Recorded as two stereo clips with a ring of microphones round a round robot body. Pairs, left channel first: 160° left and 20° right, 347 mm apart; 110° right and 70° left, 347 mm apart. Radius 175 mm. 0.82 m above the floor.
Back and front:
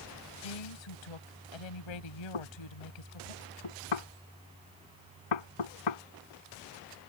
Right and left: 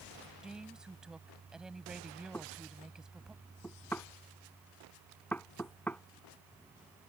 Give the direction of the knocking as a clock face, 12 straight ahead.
7 o'clock.